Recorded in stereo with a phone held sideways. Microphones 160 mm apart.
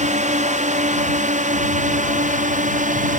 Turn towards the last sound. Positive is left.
turn(degrees=-50)  # may be behind; listen again after turning